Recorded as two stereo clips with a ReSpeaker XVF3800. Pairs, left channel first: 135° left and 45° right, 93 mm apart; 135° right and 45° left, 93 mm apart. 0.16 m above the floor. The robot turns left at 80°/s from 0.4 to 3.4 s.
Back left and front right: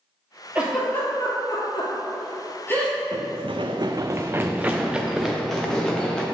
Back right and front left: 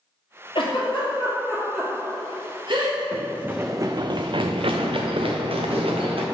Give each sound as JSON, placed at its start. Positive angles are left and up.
{"t": 0.6, "sound": "a giggle", "azimuth_deg": -120, "distance_m": 2.0}
{"t": 3.1, "sound": "running footsteps", "azimuth_deg": -20, "distance_m": 0.7}